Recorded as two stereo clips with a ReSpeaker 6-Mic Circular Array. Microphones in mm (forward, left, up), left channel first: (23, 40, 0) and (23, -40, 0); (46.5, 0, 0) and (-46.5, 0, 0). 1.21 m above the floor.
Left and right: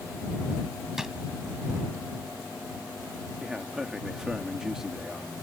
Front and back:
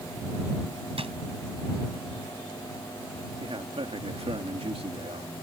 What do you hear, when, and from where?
1.0 s a drawer: 175° right
3.4 s a man speaking: 175° right